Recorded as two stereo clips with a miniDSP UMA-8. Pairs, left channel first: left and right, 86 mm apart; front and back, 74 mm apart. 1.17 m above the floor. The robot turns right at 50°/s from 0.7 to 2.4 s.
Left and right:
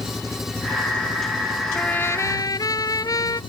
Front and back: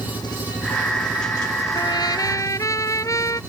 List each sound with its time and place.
0.0 s an engine running: 5° right; by 3.5 s 80° left
1.8 s a trumpet: 10° left; by 3.4 s 45° left